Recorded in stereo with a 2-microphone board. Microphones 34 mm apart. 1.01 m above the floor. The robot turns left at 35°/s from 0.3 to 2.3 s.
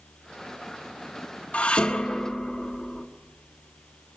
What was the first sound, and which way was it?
Dishes clattering, 45° left (ahead or behind).